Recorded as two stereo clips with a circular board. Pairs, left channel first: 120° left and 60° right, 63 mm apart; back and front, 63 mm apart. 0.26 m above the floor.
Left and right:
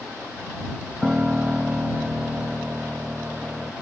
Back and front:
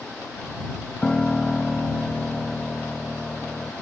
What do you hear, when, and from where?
1.0 s a piano: 110° right